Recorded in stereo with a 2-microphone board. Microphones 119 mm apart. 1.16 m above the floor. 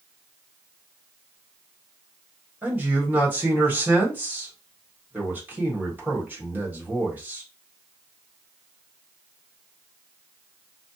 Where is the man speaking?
15° right (ahead or behind), 1.3 m.